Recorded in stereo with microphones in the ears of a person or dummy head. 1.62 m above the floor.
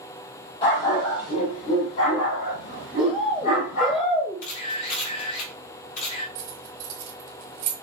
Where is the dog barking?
30° left (ahead or behind), 1.9 m; by 4.0 s 45° left (ahead or behind), 3.5 m.